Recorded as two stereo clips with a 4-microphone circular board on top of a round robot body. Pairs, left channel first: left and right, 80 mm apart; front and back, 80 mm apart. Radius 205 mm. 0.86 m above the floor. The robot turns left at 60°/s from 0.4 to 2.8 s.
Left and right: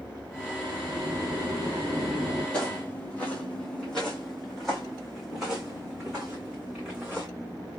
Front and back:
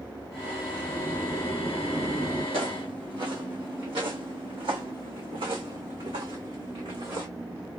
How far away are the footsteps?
About 1.2 m.